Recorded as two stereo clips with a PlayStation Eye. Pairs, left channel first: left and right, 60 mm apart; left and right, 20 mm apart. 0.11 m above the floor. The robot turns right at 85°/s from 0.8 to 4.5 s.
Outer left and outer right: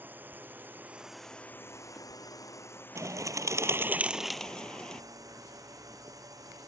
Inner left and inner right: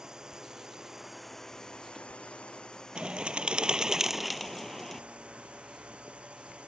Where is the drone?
30° right; by 6.7 s 80° right.